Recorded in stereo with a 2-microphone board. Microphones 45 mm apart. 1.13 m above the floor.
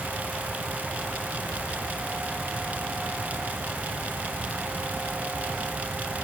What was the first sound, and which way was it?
Only background noise.